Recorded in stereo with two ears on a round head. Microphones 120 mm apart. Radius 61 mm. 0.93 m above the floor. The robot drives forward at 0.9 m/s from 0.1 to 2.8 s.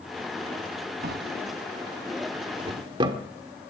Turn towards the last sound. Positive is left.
turn(degrees=-35)  # may be behind; listen again after turning